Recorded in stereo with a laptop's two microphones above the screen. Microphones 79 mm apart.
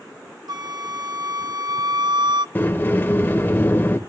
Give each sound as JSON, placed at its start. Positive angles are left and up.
{"t": 0.5, "sound": "a flute", "side_deg": -60, "distance_m": 0.5}
{"t": 2.5, "sound": "a sliding door", "side_deg": 30, "distance_m": 1.2}